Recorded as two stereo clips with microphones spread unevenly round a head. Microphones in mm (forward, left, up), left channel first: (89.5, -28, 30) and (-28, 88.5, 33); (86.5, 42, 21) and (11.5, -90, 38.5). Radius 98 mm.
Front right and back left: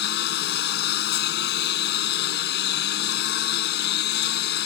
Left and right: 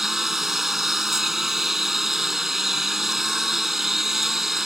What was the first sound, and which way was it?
A lawn mower, 35° right.